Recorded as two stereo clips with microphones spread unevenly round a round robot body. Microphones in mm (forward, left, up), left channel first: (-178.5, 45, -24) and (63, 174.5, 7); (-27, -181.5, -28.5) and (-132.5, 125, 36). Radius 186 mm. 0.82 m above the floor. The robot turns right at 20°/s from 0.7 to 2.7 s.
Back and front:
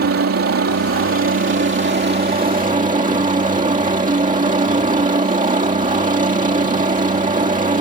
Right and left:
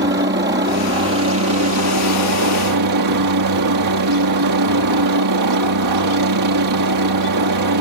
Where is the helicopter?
45° left; by 7.8 s 85° left.